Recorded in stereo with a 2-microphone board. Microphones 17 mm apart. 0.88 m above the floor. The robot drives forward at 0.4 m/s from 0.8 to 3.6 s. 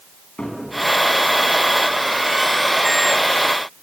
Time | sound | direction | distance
0.4 | a cupboard door | 75° left (ahead or behind) | 4 m